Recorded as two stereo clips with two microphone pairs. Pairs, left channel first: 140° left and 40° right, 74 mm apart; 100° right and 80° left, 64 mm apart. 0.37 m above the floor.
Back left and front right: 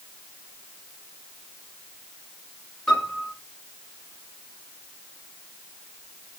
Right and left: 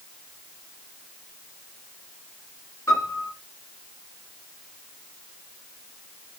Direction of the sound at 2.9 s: 140° right.